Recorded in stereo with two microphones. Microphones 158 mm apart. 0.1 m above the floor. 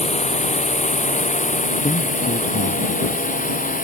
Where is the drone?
45° left (ahead or behind); by 3.8 s 60° left (ahead or behind).